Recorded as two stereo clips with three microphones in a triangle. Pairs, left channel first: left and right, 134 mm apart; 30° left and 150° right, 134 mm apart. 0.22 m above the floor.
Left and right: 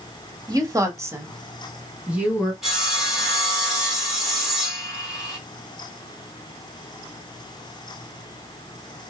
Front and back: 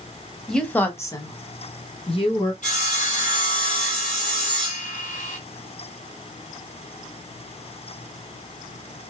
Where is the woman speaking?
55° right, 1.2 m; by 2.5 s 10° right, 2 m.